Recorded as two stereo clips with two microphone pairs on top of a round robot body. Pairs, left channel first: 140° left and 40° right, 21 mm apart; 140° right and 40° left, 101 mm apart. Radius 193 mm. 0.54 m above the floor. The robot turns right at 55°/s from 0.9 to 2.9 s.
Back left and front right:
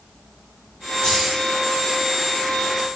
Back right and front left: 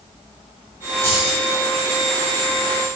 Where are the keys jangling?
105° left, 3 m; by 1.4 s 125° left, 3 m.